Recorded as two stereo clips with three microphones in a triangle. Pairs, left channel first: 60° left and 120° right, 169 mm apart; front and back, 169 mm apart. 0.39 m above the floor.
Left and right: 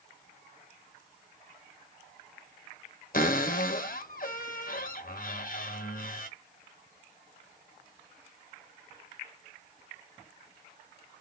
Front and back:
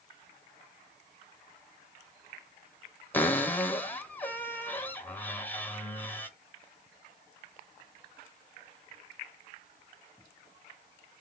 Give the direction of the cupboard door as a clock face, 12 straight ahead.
9 o'clock.